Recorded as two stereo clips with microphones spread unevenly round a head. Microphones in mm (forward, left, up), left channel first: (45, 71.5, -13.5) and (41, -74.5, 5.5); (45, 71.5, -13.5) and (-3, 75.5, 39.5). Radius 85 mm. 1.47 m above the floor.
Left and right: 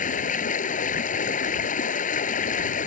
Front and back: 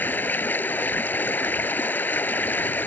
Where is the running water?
55° left.